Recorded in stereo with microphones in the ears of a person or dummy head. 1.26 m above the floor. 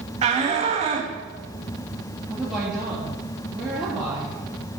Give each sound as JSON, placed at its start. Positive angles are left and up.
{"t": 0.2, "sound": "a shout", "side_deg": -30, "distance_m": 1.6}
{"t": 2.3, "sound": "a woman speaking", "side_deg": -5, "distance_m": 2.5}